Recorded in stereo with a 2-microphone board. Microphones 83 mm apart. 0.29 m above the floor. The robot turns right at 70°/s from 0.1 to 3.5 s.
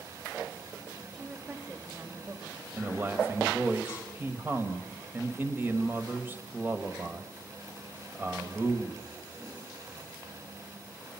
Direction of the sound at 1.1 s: 5° left (ahead or behind).